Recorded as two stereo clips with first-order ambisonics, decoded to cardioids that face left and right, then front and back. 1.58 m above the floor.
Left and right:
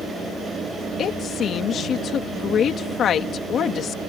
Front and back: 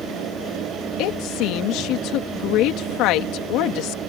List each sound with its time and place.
1.0 s a woman speaking: 30° left